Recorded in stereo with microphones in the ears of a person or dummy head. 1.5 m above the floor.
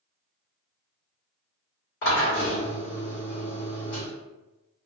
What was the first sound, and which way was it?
A drill, 55° left (ahead or behind).